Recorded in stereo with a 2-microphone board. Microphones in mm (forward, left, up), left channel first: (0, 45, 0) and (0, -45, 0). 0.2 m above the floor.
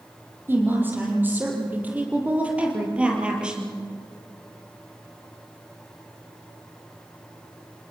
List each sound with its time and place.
0.5 s a woman speaking: 25° right (ahead or behind), 6 m; by 3.8 s 10° right (ahead or behind), 4.5 m